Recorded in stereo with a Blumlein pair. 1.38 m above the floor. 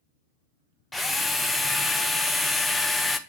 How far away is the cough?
I don't hear a cough.